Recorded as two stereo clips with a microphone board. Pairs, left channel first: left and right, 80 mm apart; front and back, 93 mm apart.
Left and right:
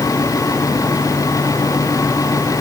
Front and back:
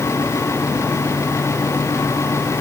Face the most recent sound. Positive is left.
No sound to turn to.